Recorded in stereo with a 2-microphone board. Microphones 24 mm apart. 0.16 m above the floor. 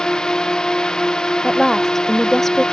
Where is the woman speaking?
10° left (ahead or behind).